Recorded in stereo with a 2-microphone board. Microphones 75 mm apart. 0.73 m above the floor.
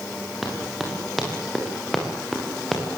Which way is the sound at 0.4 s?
Centre (ahead or behind).